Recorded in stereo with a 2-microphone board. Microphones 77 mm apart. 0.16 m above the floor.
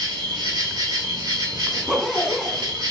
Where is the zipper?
Centre (ahead or behind), 0.9 m.